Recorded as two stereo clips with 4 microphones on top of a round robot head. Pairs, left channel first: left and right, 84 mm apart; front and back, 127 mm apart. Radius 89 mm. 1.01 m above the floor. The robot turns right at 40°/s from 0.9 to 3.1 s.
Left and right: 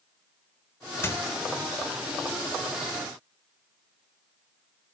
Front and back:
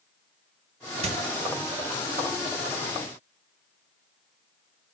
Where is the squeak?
145° left, 1.2 m; by 1.2 s 150° left, 1.2 m.